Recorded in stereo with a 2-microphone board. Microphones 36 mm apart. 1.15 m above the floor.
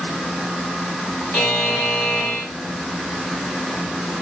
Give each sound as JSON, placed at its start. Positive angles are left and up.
{"t": 1.3, "sound": "a buzzer", "side_deg": 70, "distance_m": 1.8}